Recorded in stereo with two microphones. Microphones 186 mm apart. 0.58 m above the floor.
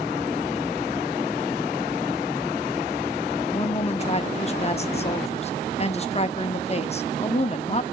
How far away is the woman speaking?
About 0.8 m.